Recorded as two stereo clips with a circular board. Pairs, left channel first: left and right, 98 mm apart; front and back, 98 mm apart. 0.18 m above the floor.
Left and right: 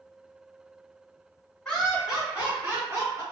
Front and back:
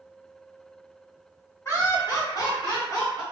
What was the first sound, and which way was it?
Laughter, 15° left.